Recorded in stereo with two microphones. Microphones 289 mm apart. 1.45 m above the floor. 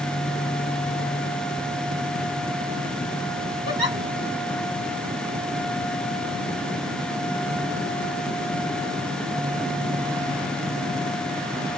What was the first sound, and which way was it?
A giggle, 55° left (ahead or behind).